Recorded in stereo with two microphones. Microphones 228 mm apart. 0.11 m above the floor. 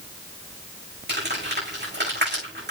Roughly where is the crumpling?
Right.